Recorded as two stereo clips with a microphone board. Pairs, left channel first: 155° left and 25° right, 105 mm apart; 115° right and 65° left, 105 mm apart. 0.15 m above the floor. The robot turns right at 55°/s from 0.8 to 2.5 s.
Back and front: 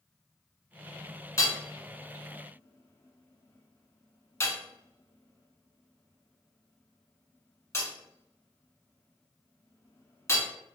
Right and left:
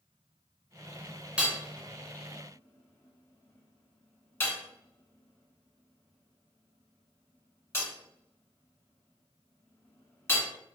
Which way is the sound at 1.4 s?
135° left.